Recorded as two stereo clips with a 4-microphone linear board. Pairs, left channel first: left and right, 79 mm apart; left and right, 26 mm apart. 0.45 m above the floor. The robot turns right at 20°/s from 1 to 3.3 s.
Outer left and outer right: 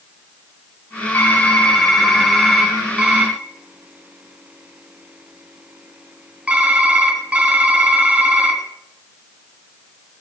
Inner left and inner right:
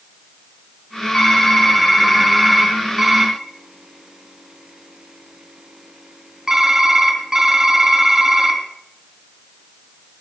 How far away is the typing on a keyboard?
About 3.5 m.